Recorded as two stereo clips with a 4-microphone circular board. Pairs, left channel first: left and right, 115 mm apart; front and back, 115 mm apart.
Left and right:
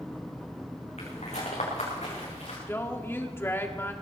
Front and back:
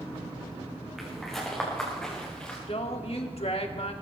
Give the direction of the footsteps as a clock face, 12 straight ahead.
9 o'clock.